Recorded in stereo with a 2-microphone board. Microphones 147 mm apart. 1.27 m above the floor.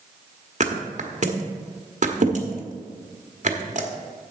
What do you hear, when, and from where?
0.6 s a thud: 55° right (ahead or behind), 1.2 m